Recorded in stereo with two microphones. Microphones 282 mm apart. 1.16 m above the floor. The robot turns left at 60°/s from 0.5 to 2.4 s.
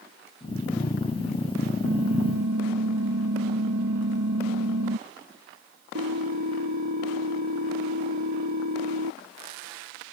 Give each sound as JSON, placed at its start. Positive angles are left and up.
{"t": 1.8, "sound": "typing on a keyboard", "azimuth_deg": -55}